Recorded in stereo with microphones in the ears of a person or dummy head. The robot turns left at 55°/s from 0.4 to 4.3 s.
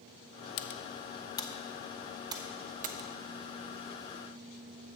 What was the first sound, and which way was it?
Typing on a keyboard, 55° left (ahead or behind).